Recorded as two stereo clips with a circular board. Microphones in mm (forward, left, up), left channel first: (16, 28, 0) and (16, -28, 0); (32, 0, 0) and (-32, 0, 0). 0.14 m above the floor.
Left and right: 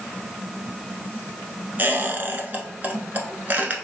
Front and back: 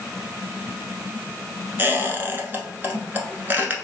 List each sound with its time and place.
1.8 s a squeak: 135° right, 0.8 m